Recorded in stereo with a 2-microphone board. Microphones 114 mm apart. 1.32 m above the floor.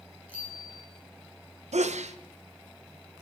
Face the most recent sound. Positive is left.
turn(degrees=-90)